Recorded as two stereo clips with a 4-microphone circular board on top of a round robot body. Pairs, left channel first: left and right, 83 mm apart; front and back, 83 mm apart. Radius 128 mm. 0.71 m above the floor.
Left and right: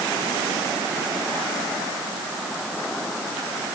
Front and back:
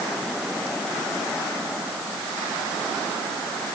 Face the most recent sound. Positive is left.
No sound to turn to.